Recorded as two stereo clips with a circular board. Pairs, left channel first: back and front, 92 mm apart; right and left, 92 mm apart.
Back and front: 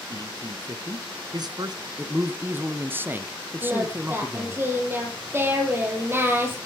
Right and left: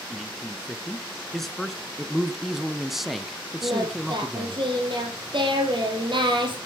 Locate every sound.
0.1 s a man speaking: 5° right, 1.8 m
2.0 s a man speaking: 5° left, 1.1 m
3.6 s singing: 65° left, 5.5 m